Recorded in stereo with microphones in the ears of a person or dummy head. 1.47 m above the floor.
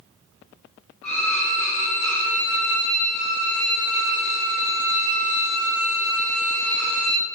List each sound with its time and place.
1.0 s a violin: 60° left (ahead or behind), 1.5 m